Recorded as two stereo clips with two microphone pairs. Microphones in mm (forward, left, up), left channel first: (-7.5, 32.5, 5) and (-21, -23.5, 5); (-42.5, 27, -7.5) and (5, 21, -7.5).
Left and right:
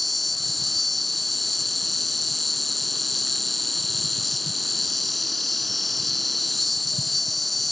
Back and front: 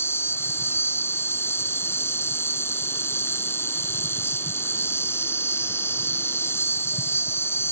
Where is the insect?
165° left.